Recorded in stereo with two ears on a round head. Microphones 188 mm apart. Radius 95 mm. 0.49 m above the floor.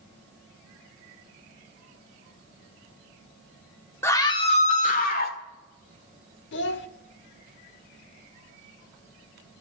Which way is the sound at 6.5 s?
60° left (ahead or behind).